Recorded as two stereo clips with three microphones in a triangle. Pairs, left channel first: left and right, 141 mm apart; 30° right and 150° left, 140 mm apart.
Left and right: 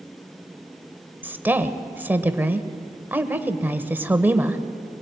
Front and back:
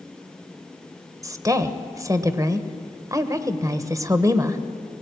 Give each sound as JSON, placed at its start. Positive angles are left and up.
{"t": 1.2, "sound": "a woman speaking", "azimuth_deg": -160, "distance_m": 1.4}